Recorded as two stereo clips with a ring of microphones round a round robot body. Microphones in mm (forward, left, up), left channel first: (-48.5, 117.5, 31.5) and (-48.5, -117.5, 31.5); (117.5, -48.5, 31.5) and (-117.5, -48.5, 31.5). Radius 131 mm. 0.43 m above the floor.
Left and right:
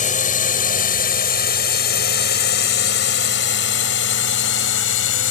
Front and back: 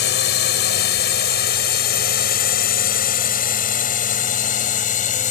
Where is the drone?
35° left; by 5.3 s 60° left.